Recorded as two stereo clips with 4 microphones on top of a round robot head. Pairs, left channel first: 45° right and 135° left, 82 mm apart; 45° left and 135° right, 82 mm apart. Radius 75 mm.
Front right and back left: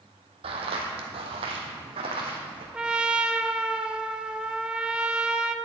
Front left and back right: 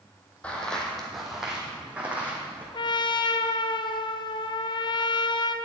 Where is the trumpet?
55° left, 0.6 m.